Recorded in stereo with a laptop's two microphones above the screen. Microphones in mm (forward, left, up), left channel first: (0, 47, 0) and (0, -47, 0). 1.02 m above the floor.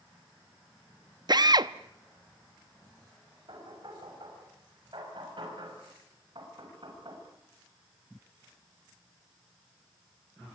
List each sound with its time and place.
1.3 s a drill: 45° right (ahead or behind), 0.8 m
3.5 s knocking: 60° right (ahead or behind), 6 m